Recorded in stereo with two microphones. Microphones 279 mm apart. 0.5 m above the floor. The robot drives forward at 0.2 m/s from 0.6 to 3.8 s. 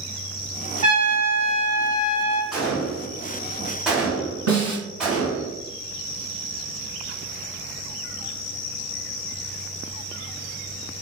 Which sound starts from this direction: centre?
A gunshot, at 2.5 s.